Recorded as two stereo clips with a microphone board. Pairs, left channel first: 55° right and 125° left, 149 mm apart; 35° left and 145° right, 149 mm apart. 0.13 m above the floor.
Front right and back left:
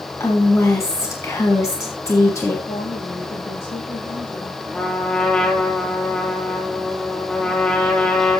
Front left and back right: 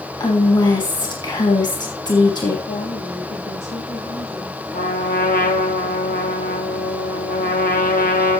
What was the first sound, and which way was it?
A woman speaking, straight ahead.